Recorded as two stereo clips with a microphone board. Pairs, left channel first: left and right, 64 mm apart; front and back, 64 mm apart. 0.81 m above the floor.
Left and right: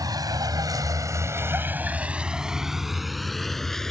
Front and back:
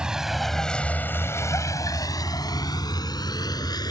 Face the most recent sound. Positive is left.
turn(degrees=5)